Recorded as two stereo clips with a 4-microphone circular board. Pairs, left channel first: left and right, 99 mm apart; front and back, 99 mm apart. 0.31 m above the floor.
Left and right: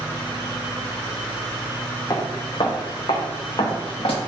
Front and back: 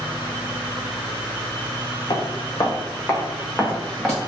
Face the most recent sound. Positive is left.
turn(degrees=80)